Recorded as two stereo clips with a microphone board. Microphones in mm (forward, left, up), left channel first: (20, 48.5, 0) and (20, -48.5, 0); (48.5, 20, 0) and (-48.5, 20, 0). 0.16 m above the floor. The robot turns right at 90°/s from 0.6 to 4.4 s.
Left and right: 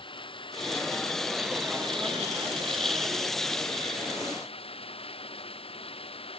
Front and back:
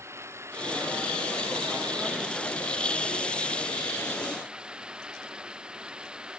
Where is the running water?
115° left; by 6.4 s 100° left.